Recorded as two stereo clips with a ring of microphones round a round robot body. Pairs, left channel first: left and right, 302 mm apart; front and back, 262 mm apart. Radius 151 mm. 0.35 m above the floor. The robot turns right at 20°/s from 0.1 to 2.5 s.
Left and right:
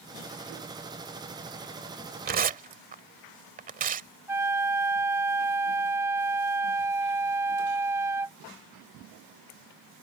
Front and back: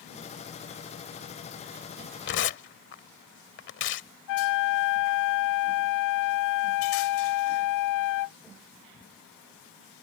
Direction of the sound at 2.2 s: 40° right.